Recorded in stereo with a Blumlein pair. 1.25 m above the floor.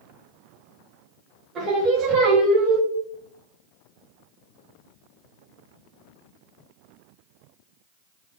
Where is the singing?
25° right, 1.5 m.